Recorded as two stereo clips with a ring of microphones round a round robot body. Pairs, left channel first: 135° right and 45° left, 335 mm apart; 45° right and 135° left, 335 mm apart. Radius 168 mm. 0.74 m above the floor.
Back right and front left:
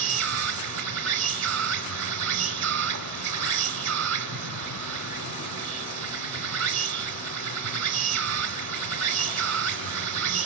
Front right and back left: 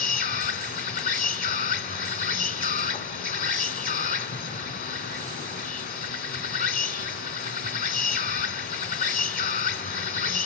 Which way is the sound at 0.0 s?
15° left.